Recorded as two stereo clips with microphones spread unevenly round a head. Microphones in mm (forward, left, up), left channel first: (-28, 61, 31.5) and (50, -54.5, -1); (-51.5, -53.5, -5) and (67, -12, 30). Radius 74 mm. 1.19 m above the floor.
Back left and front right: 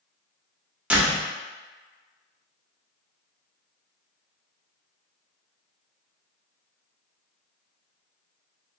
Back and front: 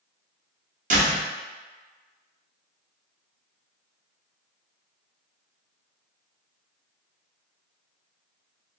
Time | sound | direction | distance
0.9 | a door slam | 30° left | 0.9 m